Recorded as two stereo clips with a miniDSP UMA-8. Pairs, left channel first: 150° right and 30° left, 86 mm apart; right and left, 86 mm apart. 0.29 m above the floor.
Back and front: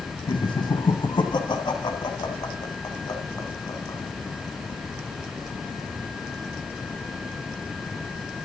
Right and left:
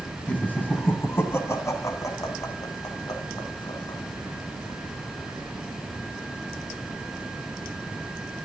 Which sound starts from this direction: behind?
Laughter, at 0.3 s.